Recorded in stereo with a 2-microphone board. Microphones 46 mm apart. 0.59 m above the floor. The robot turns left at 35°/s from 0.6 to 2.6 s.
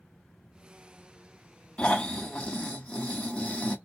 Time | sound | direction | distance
1.8 | snoring | 30° left (ahead or behind) | 1.2 m